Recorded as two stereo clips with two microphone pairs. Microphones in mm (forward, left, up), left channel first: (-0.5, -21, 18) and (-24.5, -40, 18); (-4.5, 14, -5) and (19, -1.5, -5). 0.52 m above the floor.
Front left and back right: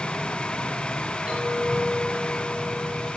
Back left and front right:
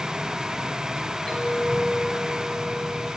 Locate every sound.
1.3 s a clink: 175° left, 9 m